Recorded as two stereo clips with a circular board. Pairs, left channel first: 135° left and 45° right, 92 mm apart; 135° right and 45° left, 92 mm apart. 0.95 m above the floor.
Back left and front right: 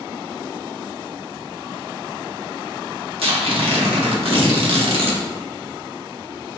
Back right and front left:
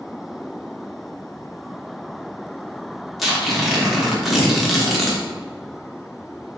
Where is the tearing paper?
45° right, 1.1 m.